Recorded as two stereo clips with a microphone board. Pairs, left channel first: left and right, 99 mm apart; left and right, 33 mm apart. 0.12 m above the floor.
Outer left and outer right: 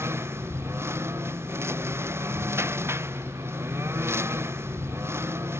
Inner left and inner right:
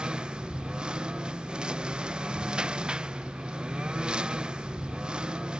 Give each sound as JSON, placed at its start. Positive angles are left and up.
{"t": 0.0, "sound": "a lawn mower", "side_deg": -25}